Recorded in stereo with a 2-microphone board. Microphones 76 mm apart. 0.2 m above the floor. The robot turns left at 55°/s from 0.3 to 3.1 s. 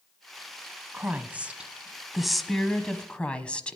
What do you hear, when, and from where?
0.9 s a woman speaking: 20° right (ahead or behind), 1.0 m; by 3.8 s 15° left (ahead or behind), 1.0 m